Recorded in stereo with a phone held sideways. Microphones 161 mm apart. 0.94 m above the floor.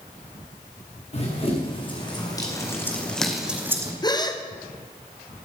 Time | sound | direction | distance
1.1 | running footsteps | 40° left (ahead or behind) | 3.5 m
4.0 | a gasp | 25° left (ahead or behind) | 1.0 m